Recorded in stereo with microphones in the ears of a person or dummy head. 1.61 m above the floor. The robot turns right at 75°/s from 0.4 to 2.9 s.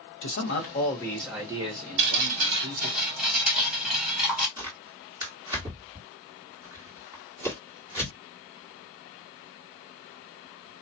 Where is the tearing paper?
25° right (ahead or behind), 1.7 m.